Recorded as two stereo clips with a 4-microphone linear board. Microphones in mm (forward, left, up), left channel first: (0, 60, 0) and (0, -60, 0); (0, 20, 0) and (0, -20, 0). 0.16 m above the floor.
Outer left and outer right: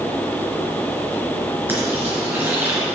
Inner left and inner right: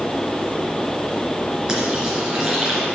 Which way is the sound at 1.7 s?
20° right (ahead or behind).